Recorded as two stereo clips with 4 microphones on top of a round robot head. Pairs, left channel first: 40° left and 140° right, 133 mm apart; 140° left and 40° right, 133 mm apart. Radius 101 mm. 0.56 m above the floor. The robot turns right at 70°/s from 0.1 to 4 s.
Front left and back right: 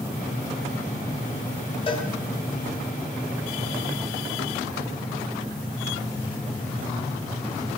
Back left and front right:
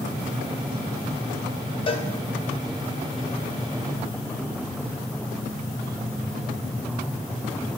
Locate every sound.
1.9 s a cowbell: 90° left, 1.2 m; by 2.1 s 105° left, 1.2 m